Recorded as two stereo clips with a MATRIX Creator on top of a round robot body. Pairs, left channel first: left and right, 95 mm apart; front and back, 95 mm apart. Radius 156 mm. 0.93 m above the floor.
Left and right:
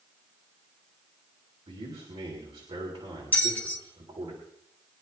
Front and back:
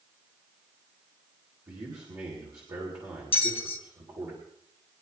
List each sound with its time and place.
1.7 s a man speaking: 130° right, 4 m
3.3 s a bell: 15° left, 1.6 m